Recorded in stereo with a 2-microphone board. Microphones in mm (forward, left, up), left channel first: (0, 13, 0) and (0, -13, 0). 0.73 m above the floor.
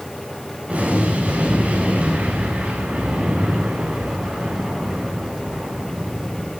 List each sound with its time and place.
0.7 s an explosion: 65° right (ahead or behind), 8 m